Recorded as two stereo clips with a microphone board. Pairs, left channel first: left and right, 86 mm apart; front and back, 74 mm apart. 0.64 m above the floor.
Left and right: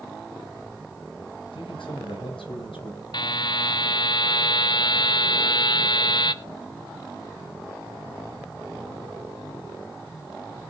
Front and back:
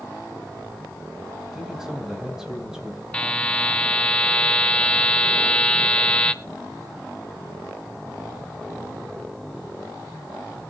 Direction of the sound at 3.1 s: 75° left.